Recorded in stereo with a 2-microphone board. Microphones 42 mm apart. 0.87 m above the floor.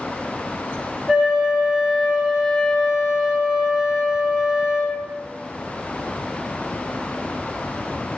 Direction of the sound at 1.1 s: 10° right (ahead or behind).